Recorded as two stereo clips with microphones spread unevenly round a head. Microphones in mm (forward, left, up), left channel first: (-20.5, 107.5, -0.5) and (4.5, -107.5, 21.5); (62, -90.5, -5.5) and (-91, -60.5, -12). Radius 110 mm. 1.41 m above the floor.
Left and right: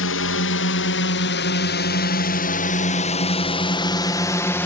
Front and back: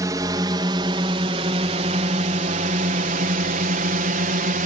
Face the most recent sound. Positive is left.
turn(degrees=175)